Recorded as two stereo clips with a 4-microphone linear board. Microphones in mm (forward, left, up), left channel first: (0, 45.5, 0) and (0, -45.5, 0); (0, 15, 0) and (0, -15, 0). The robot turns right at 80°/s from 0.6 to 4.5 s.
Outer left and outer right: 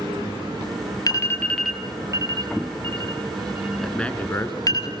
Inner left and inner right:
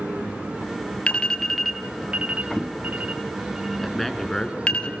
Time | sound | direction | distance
1.1 | an alarm | 45° left (ahead or behind) | 2 m
3.8 | a man speaking | straight ahead | 2 m